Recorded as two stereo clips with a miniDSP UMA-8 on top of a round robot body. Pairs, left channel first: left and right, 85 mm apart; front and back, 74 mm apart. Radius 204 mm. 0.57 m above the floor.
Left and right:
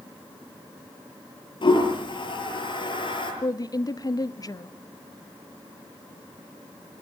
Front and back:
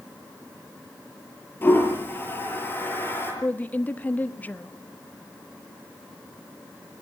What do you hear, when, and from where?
1.6 s a toilet flushing: 60° left, 8.5 m
3.4 s a woman speaking: 60° left, 1.4 m